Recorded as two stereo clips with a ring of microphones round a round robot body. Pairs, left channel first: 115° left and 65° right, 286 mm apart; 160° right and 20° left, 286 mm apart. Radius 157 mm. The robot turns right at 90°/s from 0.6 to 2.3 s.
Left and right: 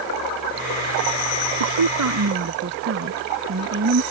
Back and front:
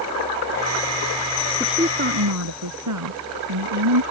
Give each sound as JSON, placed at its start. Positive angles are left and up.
{"t": 1.6, "sound": "a woman speaking", "azimuth_deg": -75}